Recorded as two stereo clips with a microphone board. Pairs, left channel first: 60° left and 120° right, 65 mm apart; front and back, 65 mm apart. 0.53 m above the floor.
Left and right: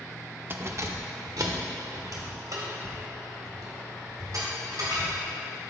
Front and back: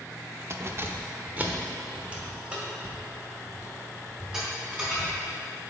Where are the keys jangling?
160° right, 0.5 m; by 5.2 s 100° right, 3.5 m.